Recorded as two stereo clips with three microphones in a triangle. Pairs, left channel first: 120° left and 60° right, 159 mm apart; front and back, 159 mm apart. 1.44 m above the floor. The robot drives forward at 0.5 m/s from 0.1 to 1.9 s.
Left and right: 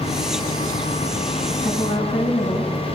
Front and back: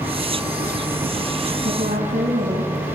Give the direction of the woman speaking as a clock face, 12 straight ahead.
7 o'clock.